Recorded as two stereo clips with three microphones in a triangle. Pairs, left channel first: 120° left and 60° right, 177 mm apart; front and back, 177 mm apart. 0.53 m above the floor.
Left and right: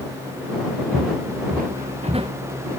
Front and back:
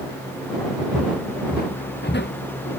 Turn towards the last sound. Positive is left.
turn(degrees=5)